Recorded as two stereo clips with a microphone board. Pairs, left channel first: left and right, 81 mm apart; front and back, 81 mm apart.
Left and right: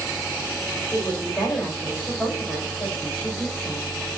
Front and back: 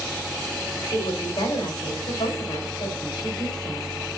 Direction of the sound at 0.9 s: 20° left.